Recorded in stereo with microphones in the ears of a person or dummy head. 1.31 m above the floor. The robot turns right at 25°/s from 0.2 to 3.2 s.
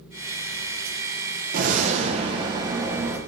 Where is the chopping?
No chopping in this recording.